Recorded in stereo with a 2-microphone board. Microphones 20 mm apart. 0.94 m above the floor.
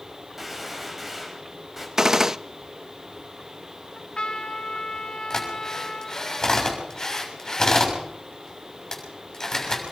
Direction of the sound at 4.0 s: 50° left (ahead or behind).